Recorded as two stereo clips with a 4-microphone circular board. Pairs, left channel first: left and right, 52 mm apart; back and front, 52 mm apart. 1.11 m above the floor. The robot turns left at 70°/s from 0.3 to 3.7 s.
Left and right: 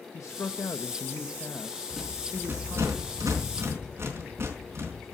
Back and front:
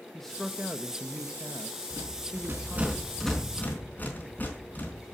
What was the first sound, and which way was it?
A man speaking, 100° left.